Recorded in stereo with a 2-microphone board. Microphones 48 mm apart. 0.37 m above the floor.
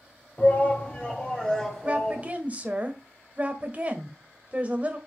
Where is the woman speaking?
30° right (ahead or behind), 1.5 m.